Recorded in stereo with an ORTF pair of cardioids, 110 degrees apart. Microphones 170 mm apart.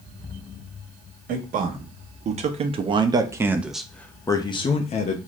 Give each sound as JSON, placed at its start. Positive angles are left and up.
{"t": 1.3, "sound": "a man speaking", "azimuth_deg": -55, "distance_m": 1.6}